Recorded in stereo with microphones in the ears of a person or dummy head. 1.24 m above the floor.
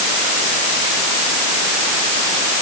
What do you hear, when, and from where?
Only background noise.